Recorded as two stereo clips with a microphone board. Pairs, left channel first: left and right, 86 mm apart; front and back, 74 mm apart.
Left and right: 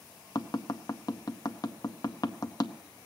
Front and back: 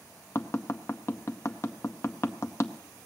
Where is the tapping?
50° left, 0.7 m.